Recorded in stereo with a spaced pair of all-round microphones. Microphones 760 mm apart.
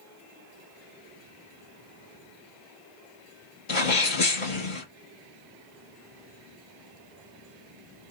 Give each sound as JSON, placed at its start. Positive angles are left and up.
{"t": 3.7, "sound": "a sneeze", "side_deg": 80, "distance_m": 1.9}